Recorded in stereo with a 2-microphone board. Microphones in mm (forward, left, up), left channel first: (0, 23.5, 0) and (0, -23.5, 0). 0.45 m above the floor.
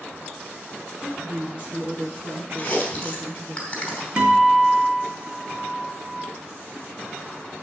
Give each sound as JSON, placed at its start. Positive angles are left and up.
{"t": 1.0, "sound": "a woman speaking", "side_deg": -30, "distance_m": 3.5}
{"t": 2.6, "sound": "chewing", "side_deg": 25, "distance_m": 3.5}
{"t": 4.2, "sound": "a guitar", "side_deg": -25, "distance_m": 2.5}